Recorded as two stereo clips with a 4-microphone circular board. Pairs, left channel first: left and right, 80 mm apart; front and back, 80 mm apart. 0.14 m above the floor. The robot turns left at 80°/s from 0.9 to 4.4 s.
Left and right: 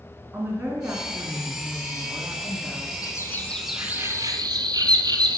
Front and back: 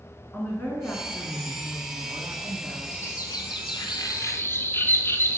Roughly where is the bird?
Ahead left.